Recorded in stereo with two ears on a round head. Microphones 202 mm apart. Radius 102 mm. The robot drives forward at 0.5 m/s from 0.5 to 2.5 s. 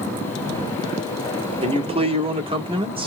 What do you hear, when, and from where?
1.6 s a man speaking: 25° right (ahead or behind), 0.8 m